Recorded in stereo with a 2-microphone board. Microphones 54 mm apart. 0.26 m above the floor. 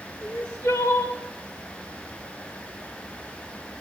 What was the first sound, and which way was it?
Crying, 65° left (ahead or behind).